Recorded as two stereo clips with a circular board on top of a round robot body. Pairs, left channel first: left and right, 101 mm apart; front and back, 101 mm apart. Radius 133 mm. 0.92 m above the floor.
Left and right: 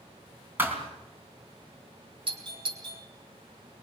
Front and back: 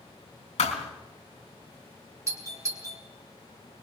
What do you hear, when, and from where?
0.6 s a thud: 20° right, 3.5 m
2.3 s a doorbell: 120° right, 4 m